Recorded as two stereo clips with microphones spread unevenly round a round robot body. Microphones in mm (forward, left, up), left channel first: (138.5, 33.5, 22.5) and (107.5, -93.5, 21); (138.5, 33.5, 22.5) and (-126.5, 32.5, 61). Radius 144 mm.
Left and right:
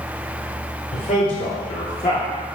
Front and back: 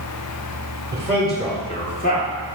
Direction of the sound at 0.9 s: 100° left.